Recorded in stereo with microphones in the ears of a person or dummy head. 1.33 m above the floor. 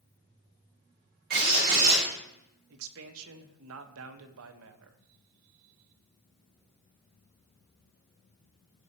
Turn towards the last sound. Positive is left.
turn(degrees=-75)  # may be behind; listen again after turning